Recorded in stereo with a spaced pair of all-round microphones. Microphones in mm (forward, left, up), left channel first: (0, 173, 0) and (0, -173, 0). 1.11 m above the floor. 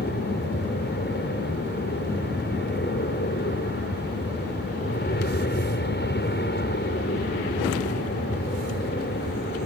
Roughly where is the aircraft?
Left.